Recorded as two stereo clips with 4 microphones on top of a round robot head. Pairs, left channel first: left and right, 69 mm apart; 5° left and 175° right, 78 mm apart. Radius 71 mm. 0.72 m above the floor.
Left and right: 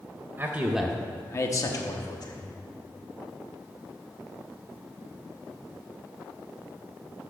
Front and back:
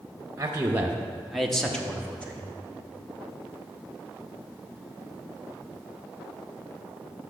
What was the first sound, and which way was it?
A man speaking, 130° right.